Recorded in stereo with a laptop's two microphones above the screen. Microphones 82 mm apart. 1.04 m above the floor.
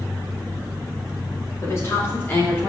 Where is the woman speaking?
35° left (ahead or behind), 2.5 m; by 2.7 s 25° left (ahead or behind), 3 m.